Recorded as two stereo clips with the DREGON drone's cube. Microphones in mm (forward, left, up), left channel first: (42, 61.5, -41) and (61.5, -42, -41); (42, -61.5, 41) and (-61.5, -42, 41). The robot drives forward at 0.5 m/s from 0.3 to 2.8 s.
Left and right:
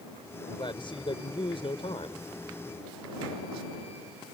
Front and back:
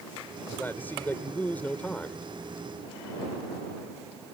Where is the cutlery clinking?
I don't hear cutlery clinking.